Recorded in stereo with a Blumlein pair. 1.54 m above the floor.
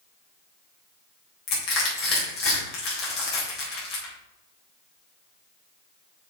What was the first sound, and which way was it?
Crushing, 40° left.